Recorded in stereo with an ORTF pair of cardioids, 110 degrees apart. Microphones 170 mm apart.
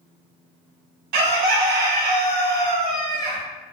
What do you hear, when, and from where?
1.1 s a bird: 70° right, 0.6 m